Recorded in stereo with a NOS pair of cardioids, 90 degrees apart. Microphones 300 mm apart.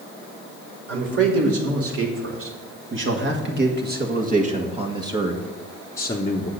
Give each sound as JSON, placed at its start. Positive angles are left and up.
{"t": 0.9, "sound": "a man speaking", "azimuth_deg": -50, "distance_m": 3.5}